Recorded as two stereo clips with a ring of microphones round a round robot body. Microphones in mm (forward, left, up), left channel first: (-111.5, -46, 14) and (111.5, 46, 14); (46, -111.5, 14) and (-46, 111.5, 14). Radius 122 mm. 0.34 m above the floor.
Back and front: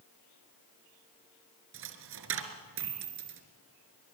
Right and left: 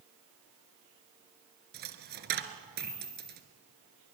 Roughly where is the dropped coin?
Ahead left.